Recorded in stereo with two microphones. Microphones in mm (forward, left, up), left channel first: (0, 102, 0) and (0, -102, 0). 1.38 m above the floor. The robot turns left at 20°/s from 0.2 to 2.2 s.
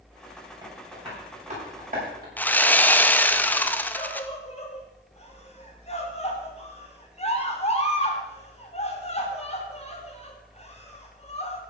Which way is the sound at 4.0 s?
30° left (ahead or behind).